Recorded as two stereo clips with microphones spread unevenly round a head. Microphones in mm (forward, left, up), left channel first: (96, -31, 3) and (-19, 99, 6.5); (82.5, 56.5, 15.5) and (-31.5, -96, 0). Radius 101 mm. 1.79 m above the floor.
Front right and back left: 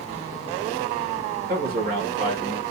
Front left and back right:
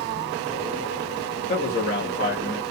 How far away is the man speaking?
About 1.8 m.